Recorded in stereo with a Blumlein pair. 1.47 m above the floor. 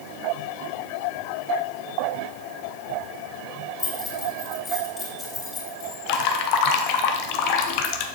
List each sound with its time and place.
3.8 s keys jangling: 15° left, 3 m
6.1 s dripping: 40° left, 1.0 m